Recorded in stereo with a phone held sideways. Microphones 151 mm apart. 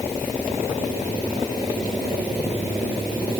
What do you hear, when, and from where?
Only background noise.